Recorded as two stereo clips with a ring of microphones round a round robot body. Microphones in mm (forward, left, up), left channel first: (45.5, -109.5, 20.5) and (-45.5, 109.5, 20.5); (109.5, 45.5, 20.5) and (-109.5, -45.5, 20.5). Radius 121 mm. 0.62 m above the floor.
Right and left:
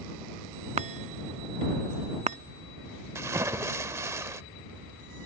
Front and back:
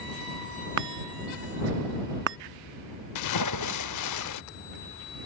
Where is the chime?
175° left.